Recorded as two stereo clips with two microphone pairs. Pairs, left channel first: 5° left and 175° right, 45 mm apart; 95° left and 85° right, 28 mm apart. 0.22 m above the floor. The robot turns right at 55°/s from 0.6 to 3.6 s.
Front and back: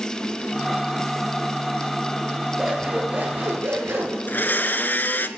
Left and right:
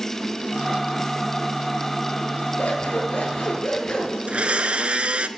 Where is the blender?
40° right, 0.9 m.